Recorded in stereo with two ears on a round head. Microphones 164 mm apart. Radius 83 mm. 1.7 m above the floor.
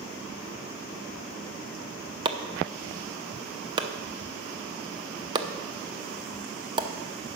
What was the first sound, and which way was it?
Chopping, 25° right (ahead or behind).